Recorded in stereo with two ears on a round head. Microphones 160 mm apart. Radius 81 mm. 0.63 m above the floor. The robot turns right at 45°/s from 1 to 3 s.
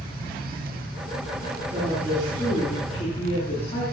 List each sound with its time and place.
1.7 s a woman speaking: 20° right, 8 m; by 3.8 s 35° left, 8 m